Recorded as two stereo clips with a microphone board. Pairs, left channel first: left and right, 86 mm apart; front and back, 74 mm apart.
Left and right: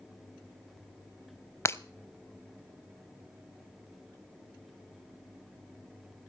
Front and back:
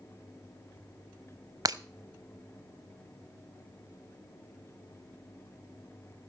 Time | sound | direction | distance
1.6 | breaking glass | 145° left | 0.6 m